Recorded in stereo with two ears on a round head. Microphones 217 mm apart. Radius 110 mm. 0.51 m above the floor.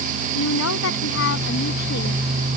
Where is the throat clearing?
No throat clearing in this recording.